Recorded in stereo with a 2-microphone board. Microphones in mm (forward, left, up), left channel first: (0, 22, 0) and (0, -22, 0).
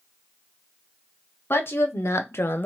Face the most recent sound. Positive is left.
turn(degrees=45)  # may be behind; listen again after turning